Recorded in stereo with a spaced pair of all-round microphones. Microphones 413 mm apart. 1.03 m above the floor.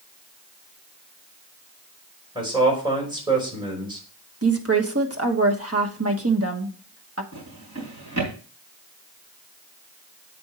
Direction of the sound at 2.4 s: 10° right (ahead or behind).